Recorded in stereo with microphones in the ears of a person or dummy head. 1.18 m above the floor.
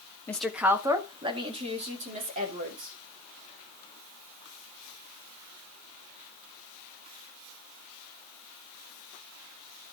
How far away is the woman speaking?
About 1.1 m.